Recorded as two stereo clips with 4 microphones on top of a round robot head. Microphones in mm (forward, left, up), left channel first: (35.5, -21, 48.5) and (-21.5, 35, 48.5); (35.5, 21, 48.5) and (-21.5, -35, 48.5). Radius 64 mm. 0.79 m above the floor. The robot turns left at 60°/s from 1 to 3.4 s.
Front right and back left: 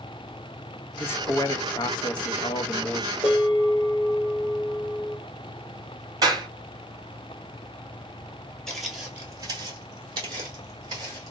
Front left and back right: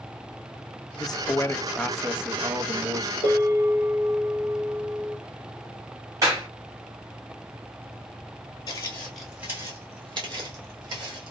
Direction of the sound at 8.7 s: 40° left.